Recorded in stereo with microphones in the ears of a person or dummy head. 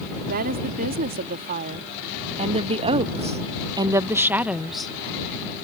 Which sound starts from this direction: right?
A woman speaking, at 0.3 s.